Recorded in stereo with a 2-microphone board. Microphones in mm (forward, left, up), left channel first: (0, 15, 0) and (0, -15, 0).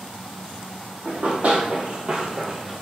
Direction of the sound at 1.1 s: 55° right (ahead or behind).